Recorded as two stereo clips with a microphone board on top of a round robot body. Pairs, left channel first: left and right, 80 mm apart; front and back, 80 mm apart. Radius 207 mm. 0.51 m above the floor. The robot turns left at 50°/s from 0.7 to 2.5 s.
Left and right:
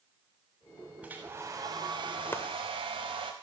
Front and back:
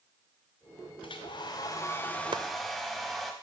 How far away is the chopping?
About 0.9 m.